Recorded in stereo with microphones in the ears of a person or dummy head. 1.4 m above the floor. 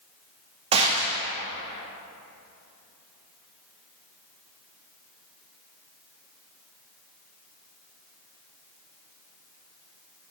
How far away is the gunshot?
About 0.8 m.